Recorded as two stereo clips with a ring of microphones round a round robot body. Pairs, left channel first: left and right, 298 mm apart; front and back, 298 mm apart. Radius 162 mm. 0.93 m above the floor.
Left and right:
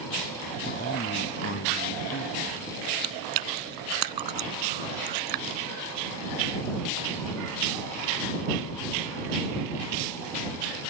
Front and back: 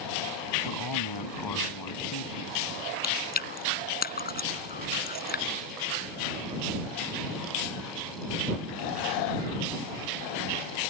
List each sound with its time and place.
0.7 s a man speaking: 25° left; by 2.7 s 35° left
3.0 s chewing: 60° right